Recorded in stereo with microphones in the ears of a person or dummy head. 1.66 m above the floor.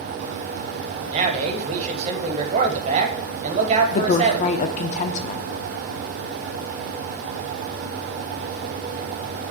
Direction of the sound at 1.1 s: 40° right (ahead or behind).